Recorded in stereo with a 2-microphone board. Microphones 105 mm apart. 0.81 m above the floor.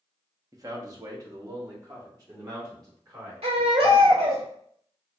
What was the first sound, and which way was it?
A man speaking, 35° right (ahead or behind).